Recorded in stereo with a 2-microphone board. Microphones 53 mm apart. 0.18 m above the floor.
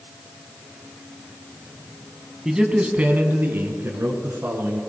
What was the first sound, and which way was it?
A man speaking, 10° right (ahead or behind).